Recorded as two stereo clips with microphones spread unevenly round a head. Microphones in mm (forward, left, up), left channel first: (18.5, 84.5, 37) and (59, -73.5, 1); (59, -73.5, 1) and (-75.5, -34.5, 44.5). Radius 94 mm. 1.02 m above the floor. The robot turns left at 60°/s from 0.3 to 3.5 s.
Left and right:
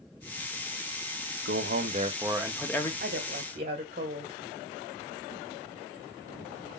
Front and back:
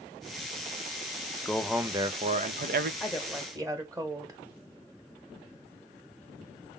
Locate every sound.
1.4 s a man speaking: 95° right, 0.8 m; by 2.9 s 175° left, 0.8 m
3.0 s a woman speaking: 95° right, 1.6 m; by 4.4 s 125° right, 1.6 m